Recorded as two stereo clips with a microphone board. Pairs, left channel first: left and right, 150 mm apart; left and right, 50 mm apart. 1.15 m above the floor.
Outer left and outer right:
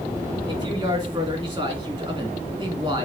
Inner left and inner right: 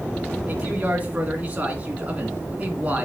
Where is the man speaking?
35° right (ahead or behind), 2.5 m.